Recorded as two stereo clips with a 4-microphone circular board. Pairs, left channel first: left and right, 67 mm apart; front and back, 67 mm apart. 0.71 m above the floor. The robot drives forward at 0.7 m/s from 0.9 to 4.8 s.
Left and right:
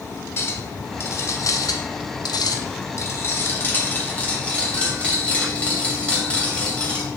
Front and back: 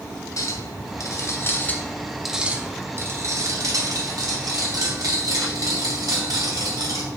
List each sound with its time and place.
0.4 s a clink: 35° left, 1.1 m; by 7.0 s 160° left, 1.9 m